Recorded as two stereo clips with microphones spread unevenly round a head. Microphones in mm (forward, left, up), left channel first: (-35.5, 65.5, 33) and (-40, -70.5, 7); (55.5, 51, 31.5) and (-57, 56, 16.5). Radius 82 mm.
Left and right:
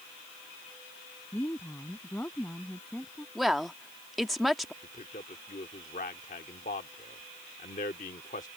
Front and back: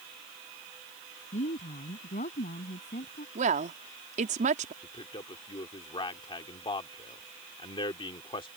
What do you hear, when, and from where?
1.3 s a woman speaking: 10° left; by 3.2 s 5° left
3.4 s a woman speaking: straight behind
4.8 s a man speaking: 40° left